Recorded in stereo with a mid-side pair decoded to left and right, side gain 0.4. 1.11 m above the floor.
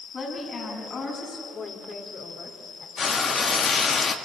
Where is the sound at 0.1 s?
60° left, 8 m.